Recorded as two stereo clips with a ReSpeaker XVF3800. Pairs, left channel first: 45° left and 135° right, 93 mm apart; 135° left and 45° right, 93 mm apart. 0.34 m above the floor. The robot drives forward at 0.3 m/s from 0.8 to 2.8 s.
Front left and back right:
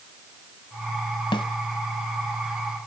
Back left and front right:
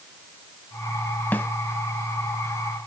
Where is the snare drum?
65° left, 1.2 m.